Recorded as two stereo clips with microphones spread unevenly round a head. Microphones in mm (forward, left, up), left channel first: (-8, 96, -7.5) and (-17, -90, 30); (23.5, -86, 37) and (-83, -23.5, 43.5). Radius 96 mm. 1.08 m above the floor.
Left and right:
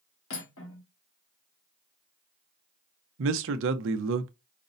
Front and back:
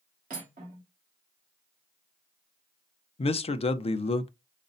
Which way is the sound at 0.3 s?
105° left.